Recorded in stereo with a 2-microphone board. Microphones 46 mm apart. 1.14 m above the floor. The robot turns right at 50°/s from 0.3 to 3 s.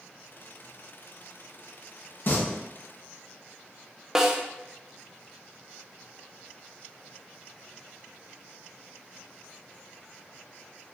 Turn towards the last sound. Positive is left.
turn(degrees=-15)  # may be behind; listen again after turning